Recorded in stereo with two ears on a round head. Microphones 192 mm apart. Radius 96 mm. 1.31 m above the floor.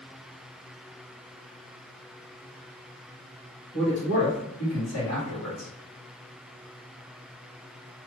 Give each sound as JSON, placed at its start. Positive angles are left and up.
{"t": 3.7, "sound": "a man speaking", "side_deg": 55, "distance_m": 1.7}